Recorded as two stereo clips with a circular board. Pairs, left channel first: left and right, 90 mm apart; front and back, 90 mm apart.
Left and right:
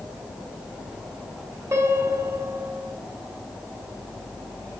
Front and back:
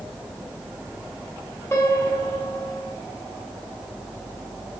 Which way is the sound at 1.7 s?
50° right.